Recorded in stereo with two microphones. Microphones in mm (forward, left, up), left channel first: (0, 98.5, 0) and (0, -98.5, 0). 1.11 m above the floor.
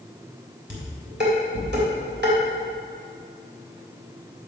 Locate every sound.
0.7 s dishes clattering: 55° right (ahead or behind), 3 m